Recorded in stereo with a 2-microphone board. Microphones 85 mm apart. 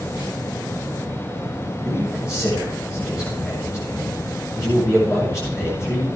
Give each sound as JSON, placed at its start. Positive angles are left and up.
{"t": 1.9, "sound": "a man speaking", "side_deg": 35, "distance_m": 6.5}